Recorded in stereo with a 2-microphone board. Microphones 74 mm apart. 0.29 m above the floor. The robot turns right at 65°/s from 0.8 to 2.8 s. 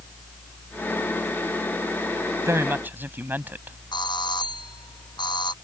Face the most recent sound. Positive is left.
turn(degrees=85)